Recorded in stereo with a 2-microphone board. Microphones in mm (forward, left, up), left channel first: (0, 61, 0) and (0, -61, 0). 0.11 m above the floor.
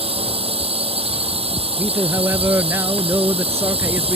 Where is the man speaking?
20° right (ahead or behind).